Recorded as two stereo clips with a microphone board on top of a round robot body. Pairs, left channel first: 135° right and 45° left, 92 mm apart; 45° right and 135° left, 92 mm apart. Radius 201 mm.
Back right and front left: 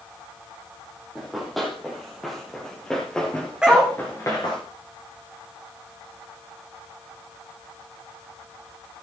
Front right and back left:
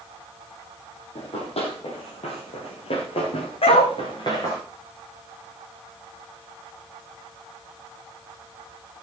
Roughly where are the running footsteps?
Ahead right.